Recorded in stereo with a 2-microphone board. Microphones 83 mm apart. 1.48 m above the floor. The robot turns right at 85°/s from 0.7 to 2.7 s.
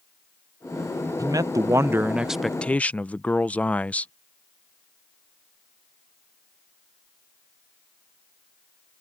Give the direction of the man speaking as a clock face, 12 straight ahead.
3 o'clock.